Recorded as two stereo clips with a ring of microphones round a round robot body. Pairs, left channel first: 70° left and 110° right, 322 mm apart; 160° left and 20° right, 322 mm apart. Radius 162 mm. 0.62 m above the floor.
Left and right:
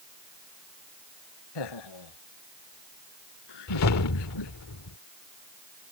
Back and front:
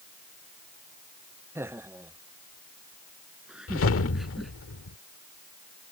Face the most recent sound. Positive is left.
turn(degrees=105)